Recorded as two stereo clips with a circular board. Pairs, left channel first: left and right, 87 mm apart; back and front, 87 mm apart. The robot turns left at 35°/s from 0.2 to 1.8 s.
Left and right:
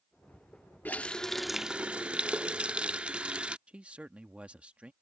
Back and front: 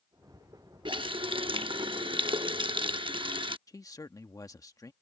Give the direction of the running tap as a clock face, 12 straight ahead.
11 o'clock.